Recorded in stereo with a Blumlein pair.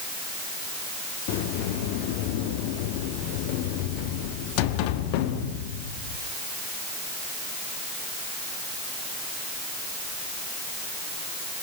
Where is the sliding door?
45° left, 1.3 m.